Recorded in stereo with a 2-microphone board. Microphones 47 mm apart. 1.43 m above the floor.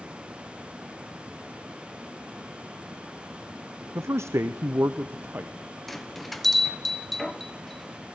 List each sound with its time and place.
4.0 s a man speaking: 60° right (ahead or behind), 0.6 m; by 5.5 s 45° right (ahead or behind), 1.0 m
5.9 s a bell: 5° left (ahead or behind), 0.9 m